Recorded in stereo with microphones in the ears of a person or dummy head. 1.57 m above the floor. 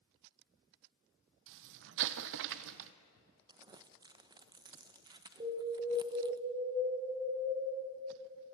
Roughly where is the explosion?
Right.